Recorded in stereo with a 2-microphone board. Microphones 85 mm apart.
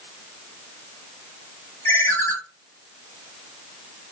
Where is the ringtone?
30° left (ahead or behind), 1.1 m.